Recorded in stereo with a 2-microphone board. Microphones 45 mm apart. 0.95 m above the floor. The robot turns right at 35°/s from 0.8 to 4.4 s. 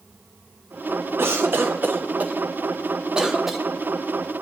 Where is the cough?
55° right (ahead or behind), 0.6 m; by 3.6 s 5° right (ahead or behind), 0.6 m.